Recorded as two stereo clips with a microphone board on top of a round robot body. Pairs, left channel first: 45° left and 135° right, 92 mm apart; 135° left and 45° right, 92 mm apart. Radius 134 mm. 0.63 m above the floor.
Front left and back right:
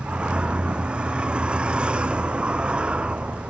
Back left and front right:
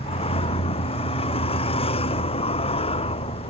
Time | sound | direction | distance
0.0 | a vehicle | 145° left | ?